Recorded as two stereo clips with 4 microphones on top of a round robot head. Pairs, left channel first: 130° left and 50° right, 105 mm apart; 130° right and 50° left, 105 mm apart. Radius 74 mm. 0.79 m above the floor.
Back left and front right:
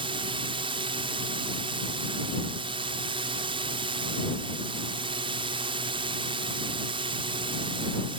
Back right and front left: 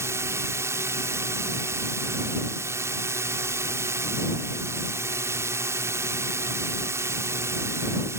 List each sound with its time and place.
0.0 s a drone: 15° right